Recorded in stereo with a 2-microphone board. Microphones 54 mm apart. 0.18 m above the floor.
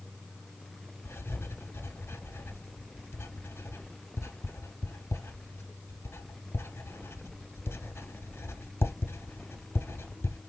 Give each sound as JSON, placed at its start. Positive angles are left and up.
{"t": 1.1, "sound": "writing", "side_deg": 55, "distance_m": 1.1}